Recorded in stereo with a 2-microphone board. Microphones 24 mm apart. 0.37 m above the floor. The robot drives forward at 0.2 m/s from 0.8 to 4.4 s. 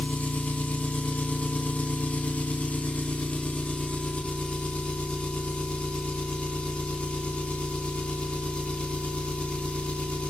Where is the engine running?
80° left, 0.8 m; by 10.3 s 50° left (ahead or behind), 0.9 m.